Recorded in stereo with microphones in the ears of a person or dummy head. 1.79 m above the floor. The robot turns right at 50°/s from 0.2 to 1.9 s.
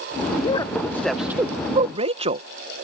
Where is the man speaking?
35° left (ahead or behind); by 2.5 s 40° right (ahead or behind).